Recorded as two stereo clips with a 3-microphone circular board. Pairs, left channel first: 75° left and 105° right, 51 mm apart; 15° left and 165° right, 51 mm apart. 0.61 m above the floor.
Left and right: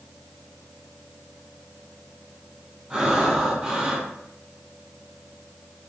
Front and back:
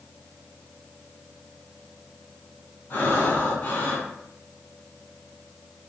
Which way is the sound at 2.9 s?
30° right.